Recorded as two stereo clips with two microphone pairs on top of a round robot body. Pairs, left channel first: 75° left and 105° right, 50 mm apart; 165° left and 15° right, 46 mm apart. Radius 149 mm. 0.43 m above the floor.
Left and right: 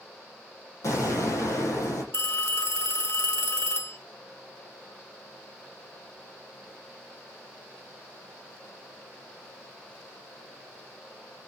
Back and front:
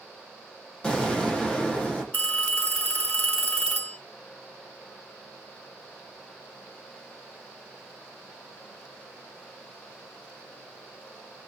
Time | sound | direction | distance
0.8 | an explosion | 95° left | 6.5 m
2.1 | a phone ringing | 110° left | 1.6 m